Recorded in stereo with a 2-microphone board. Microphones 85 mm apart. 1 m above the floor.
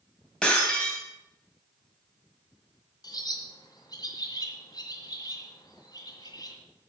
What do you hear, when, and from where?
0.4 s breaking glass: 10° left (ahead or behind), 3 m
3.0 s a bird: 55° left (ahead or behind), 2.0 m